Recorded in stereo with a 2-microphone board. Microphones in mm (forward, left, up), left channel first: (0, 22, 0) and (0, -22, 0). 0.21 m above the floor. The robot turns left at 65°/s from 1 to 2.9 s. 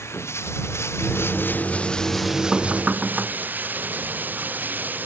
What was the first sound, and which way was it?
Running water, 80° left.